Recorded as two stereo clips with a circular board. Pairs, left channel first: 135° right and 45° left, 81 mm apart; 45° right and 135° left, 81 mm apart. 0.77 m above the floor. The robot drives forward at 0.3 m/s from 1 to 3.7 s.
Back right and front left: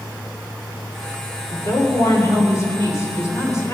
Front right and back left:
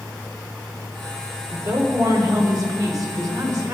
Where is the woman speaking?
170° left, 2.5 m; by 3.7 s 175° left, 3.5 m.